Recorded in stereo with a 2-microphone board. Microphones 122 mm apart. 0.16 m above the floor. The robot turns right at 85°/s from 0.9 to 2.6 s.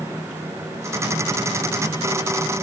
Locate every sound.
Only background noise.